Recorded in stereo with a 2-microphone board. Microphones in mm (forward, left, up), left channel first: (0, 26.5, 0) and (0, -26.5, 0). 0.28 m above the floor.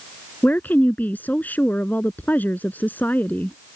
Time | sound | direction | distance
0.4 | a woman speaking | 35° left (ahead or behind) | ?